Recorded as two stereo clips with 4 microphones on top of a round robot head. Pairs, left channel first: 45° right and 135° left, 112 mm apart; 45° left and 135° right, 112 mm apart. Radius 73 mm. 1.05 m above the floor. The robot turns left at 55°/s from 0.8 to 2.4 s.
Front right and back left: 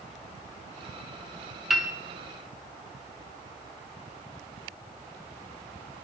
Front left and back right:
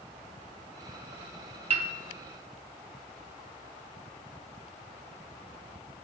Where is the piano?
140° right, 1.3 m; by 1.9 s 150° right, 1.3 m.